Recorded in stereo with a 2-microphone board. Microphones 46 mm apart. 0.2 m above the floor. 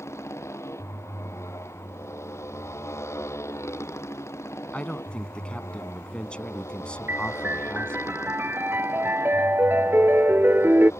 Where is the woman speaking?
20° left (ahead or behind).